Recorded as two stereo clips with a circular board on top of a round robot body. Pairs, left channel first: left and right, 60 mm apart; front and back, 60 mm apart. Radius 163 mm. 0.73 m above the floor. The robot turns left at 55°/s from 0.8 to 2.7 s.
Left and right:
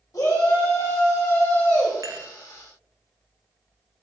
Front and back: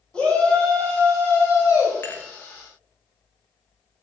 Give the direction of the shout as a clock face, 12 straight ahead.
10 o'clock.